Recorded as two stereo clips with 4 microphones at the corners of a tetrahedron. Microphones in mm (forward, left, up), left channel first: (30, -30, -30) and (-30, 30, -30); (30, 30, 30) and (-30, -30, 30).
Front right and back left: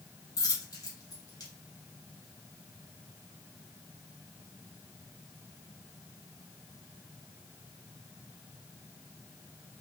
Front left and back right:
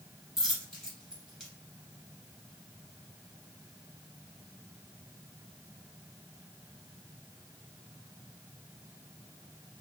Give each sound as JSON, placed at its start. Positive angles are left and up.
{"t": 0.4, "sound": "a dropped coin", "azimuth_deg": -50, "distance_m": 1.2}